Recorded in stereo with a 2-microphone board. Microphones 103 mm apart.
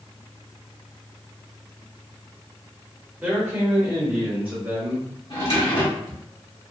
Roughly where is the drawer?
Left.